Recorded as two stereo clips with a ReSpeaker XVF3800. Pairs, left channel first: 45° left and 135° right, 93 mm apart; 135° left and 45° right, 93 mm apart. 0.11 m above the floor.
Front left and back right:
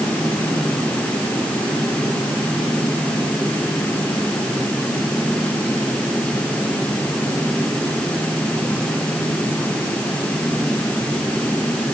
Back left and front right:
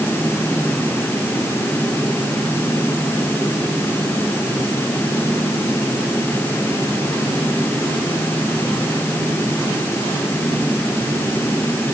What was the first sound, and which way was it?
Only background noise.